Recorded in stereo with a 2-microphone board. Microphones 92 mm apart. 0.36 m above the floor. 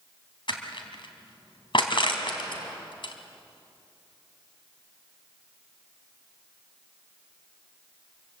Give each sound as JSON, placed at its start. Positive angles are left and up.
{"t": 0.5, "sound": "crushing", "side_deg": 65, "distance_m": 3.0}